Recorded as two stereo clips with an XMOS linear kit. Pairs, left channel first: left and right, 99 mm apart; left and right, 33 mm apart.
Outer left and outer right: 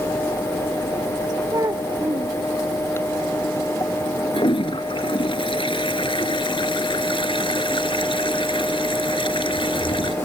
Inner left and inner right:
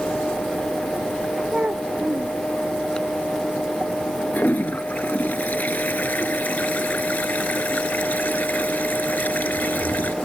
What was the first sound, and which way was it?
A child speaking, 40° right (ahead or behind).